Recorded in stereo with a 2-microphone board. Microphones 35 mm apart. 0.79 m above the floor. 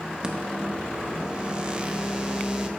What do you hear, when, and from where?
0.2 s a microwave: 25° right (ahead or behind), 0.7 m